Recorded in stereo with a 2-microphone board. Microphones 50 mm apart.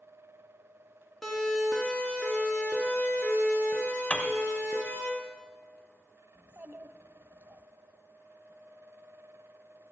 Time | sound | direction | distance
1.2 | a siren | 5° left (ahead or behind) | 3 m
4.1 | a piano | 25° left (ahead or behind) | 1.2 m
6.3 | a child speaking | 50° right (ahead or behind) | 0.8 m